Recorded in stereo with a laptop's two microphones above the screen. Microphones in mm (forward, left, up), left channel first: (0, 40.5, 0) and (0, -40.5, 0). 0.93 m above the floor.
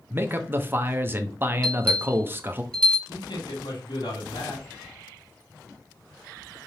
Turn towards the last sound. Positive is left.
turn(degrees=70)  # may be behind; listen again after turning